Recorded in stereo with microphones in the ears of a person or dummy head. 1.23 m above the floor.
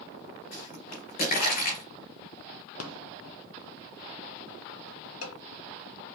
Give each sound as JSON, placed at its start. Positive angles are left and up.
{"t": 0.5, "sound": "a pop", "side_deg": 50, "distance_m": 3.0}
{"t": 2.8, "sound": "a rattle", "side_deg": 80, "distance_m": 0.8}